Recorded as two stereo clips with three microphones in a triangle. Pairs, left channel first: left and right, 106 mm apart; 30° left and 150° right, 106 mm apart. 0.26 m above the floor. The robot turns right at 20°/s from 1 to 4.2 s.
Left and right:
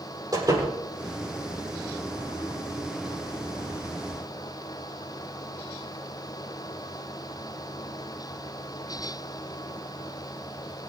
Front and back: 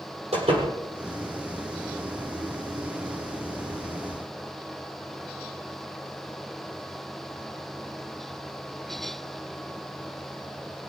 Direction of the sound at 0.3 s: 145° right.